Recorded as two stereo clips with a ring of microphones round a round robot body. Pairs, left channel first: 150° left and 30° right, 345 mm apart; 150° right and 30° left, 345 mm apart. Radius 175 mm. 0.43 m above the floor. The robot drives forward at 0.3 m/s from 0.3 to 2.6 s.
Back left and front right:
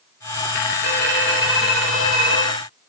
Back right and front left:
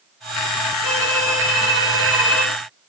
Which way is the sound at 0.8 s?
165° right.